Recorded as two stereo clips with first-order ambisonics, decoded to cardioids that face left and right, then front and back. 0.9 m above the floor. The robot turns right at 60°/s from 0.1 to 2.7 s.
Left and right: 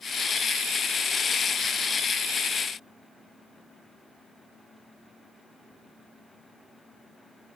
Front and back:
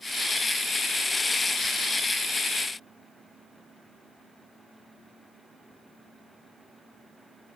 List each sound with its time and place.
Only background noise.